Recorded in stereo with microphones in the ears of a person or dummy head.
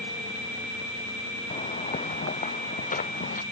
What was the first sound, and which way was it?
Footsteps, 35° left (ahead or behind).